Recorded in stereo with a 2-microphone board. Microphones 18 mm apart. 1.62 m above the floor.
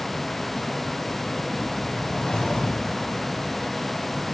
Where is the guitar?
No guitar in this recording.